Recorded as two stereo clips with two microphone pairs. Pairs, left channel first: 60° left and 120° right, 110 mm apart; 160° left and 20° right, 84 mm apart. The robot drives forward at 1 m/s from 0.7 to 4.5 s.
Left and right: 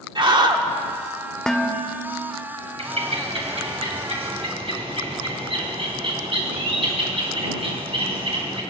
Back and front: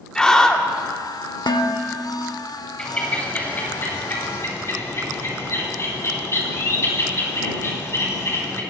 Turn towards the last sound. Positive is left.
turn(degrees=-145)